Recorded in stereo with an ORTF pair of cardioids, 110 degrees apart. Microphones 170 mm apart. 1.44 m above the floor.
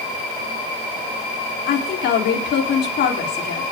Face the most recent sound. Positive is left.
turn(degrees=70)